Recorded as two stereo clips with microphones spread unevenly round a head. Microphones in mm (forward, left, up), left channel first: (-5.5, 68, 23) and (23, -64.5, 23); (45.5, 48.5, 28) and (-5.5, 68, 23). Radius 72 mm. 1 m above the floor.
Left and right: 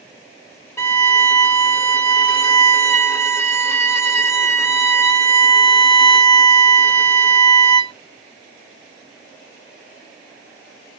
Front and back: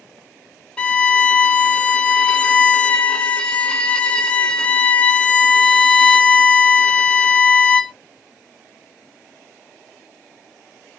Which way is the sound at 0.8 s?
40° left.